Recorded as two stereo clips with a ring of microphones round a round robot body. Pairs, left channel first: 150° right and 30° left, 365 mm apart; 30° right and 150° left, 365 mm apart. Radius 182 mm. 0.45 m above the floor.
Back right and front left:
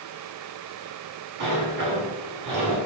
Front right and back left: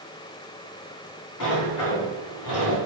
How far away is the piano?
I don't hear a piano.